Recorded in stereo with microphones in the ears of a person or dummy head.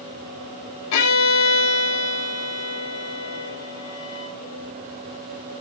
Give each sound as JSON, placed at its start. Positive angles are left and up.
{"t": 0.9, "sound": "a violin", "side_deg": 70, "distance_m": 3.0}